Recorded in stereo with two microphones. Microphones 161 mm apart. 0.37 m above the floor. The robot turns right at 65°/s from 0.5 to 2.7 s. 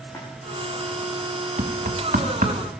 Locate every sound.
0.1 s a splash: 20° left (ahead or behind), 6.5 m
1.6 s knocking: 50° right (ahead or behind), 2 m; by 2.6 s 55° right (ahead or behind), 2 m